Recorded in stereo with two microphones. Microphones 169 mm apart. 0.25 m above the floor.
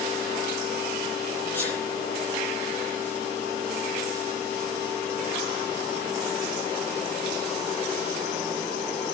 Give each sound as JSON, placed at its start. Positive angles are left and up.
{"t": 1.5, "sound": "a sneeze", "side_deg": 10, "distance_m": 8.5}